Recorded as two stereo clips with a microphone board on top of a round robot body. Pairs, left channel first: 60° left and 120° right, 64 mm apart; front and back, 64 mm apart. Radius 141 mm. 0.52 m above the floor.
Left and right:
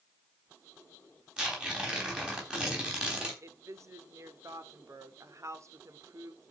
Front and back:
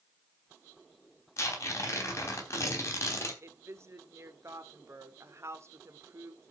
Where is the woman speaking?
145° right, 1.9 m.